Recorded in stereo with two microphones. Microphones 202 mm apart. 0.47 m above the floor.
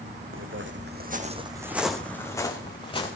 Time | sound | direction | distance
0.3 | footsteps | 75° right (ahead or behind) | 1.6 m